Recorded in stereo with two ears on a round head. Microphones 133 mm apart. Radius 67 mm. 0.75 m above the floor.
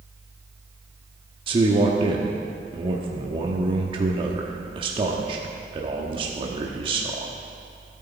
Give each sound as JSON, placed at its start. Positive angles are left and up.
{"t": 1.5, "sound": "a man speaking", "side_deg": -35, "distance_m": 1.2}